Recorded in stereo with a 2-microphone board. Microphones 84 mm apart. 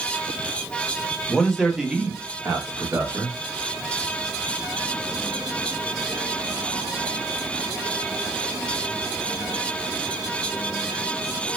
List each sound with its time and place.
1.3 s a man speaking: 5° left (ahead or behind), 0.8 m; by 3.4 s 30° right (ahead or behind), 1.0 m